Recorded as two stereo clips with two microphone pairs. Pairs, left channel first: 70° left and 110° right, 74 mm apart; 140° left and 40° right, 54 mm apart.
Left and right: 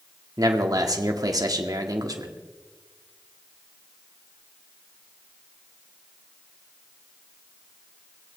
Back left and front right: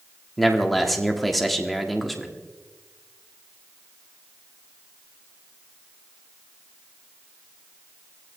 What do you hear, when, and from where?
0.4 s a man speaking: 130° right, 1.6 m